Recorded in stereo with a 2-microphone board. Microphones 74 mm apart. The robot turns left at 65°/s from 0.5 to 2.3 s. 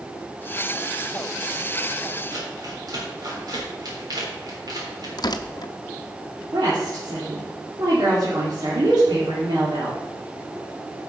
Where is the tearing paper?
65° left (ahead or behind), 0.6 m.